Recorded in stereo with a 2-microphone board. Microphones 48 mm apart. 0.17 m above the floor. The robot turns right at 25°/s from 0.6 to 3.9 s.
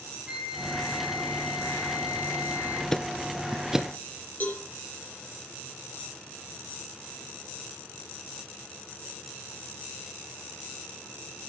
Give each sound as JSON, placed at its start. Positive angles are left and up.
{"t": 0.3, "sound": "a flute", "azimuth_deg": -160, "distance_m": 1.7}
{"t": 2.9, "sound": "ticking", "side_deg": 10, "distance_m": 0.6}
{"t": 4.4, "sound": "a cowbell", "side_deg": 35, "distance_m": 5.0}